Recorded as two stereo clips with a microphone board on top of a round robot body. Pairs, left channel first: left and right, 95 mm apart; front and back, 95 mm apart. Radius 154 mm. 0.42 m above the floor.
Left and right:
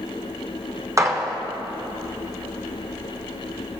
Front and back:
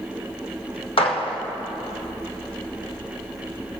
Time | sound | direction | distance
1.0 | a gunshot | 30° right | 1.4 m